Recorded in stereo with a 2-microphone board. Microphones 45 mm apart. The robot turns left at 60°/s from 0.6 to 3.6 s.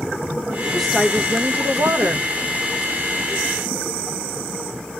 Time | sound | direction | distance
0.7 | a woman speaking | 10° left | 1.4 m